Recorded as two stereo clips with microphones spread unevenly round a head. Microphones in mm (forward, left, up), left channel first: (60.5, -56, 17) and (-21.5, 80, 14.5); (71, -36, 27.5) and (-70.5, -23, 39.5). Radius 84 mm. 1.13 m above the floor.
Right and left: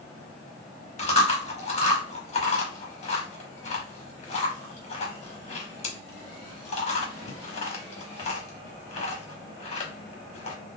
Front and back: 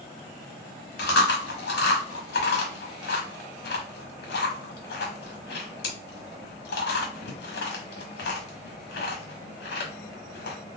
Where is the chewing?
10° right, 1.2 m.